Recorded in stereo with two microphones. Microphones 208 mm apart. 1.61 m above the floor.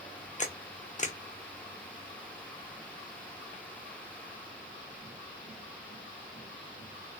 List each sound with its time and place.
0.4 s a camera shutter: 35° left (ahead or behind), 0.7 m